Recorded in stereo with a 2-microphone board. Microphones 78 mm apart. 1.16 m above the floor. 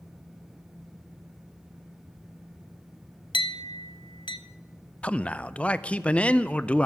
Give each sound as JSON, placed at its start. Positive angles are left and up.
{"t": 3.3, "sound": "a clink", "side_deg": 80, "distance_m": 0.8}
{"t": 5.0, "sound": "a man speaking", "side_deg": 15, "distance_m": 0.5}